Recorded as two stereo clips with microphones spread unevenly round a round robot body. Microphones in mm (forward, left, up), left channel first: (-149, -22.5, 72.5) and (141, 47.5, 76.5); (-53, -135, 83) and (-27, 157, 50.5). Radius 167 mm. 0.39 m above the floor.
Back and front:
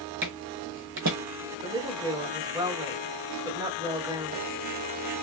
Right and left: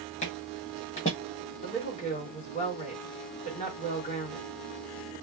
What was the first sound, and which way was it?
Footsteps, 30° right.